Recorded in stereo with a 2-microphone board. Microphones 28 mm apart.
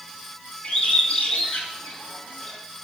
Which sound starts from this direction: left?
A bird, at 0.6 s.